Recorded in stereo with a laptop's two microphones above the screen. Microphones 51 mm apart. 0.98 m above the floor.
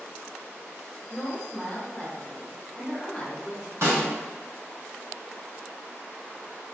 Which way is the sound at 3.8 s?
65° right (ahead or behind).